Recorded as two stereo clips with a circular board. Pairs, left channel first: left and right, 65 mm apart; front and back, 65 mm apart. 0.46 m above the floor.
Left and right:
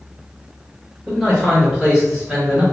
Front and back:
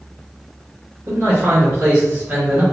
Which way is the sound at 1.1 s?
165° right.